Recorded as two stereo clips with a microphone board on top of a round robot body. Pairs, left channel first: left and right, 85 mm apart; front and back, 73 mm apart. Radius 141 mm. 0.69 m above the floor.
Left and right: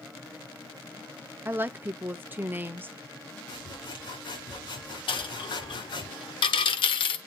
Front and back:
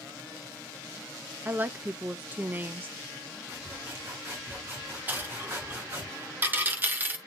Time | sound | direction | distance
1.4 | a woman speaking | 135° right | 0.8 m
3.5 | sawing | 120° left | 4 m
5.1 | a dropped coin | 115° left | 0.9 m